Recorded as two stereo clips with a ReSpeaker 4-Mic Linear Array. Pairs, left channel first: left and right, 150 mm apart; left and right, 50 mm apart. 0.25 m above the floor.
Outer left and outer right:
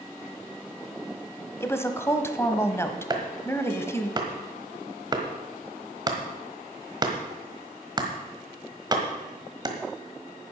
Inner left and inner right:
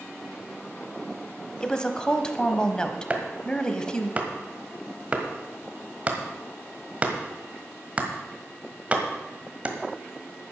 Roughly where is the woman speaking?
Centre.